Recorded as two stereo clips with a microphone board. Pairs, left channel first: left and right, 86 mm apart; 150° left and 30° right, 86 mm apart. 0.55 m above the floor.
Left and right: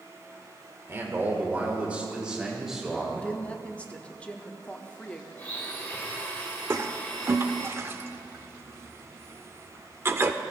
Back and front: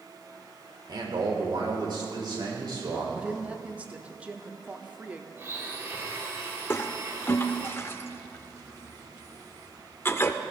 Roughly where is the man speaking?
Ahead right.